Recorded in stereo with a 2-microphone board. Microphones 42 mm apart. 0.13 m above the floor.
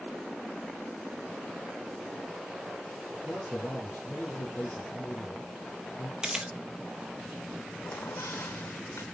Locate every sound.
3.2 s a man speaking: 40° left (ahead or behind), 4.5 m
6.2 s a camera shutter: 15° right (ahead or behind), 1.1 m
7.9 s a squeak: 65° left (ahead or behind), 0.8 m